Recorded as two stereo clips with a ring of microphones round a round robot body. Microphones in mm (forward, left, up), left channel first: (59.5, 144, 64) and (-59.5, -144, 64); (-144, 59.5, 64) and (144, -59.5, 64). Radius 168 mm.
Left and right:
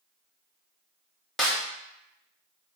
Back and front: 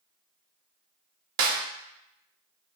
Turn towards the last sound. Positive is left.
turn(degrees=-20)